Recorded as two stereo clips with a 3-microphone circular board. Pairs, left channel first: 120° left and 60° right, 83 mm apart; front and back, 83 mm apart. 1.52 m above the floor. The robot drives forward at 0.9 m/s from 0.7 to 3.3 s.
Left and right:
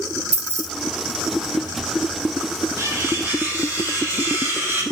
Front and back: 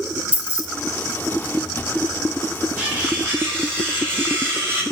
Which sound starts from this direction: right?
Cutlery clinking, at 2.8 s.